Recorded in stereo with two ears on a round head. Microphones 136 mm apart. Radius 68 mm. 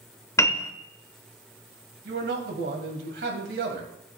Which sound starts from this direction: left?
A piano, at 0.4 s.